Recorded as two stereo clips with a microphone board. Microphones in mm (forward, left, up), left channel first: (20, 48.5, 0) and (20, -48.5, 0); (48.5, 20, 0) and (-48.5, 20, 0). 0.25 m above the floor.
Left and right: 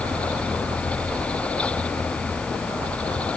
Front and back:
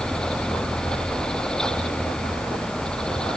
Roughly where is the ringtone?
No ringtone in this recording.